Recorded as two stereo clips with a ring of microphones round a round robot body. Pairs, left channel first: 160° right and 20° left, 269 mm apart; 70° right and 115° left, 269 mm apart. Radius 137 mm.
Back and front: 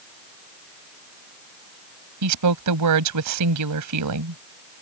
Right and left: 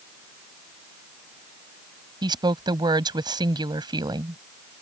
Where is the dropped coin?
No dropped coin in this recording.